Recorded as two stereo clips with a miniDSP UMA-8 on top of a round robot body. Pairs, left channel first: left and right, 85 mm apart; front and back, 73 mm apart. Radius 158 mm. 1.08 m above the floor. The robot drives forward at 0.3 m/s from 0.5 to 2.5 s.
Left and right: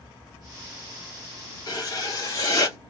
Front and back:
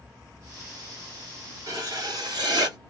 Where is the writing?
135° left, 0.7 m; by 2.8 s 145° left, 0.9 m.